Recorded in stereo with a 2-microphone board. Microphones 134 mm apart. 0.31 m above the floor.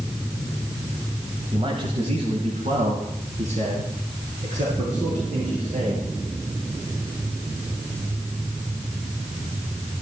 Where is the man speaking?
40° right (ahead or behind), 1.7 m; by 6.1 s 65° right (ahead or behind), 7 m.